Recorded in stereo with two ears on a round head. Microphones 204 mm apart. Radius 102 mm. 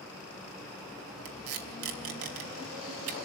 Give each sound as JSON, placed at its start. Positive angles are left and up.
{"t": 1.2, "sound": "tape being pulled", "side_deg": -70, "distance_m": 3.0}